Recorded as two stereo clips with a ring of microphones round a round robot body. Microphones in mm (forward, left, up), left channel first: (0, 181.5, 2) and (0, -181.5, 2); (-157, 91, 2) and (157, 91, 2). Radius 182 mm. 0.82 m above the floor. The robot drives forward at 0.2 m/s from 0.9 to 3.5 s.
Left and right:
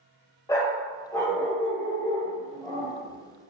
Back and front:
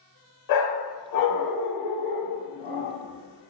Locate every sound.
0.5 s a dog barking: 170° left, 1.0 m; by 3.5 s 175° left, 1.5 m